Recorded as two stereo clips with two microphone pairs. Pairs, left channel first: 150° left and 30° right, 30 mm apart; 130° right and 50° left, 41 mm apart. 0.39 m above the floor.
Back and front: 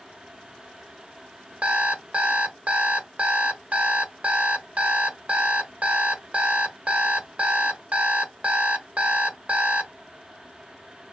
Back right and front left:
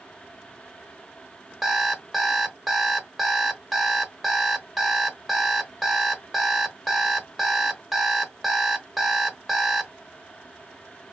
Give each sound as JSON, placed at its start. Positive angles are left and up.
{"t": 1.6, "sound": "an alarm clock", "azimuth_deg": -30, "distance_m": 0.8}